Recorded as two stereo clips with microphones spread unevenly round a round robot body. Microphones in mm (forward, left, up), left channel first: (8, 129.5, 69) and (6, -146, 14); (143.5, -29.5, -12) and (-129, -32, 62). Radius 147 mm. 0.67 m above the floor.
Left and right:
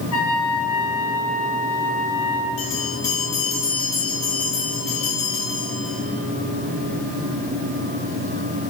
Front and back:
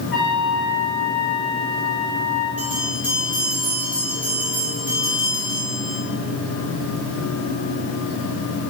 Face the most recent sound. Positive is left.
turn(degrees=95)